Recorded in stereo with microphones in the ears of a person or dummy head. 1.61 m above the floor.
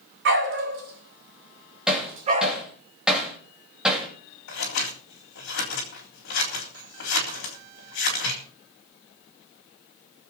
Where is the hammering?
5° right (ahead or behind), 3 m.